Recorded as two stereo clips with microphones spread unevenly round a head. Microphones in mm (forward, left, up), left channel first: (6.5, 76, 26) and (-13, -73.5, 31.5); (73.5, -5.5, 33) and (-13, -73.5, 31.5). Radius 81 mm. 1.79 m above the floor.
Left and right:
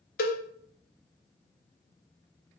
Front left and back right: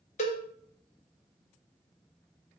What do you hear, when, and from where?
0.2 s a cowbell: 55° left, 0.6 m